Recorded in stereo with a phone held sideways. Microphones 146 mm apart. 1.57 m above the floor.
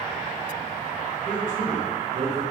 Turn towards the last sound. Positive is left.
turn(degrees=-80)